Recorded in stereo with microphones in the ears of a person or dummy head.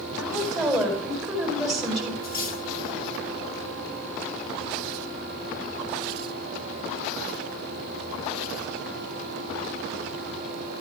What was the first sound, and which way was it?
A woman speaking, 5° left (ahead or behind).